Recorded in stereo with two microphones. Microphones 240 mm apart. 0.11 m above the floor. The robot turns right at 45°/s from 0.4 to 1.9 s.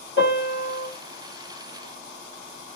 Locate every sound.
0.2 s a piano: 50° left (ahead or behind), 2 m; by 0.9 s 40° left (ahead or behind), 2 m